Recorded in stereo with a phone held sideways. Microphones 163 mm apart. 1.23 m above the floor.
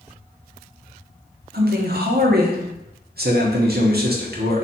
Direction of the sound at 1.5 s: 75° right (ahead or behind).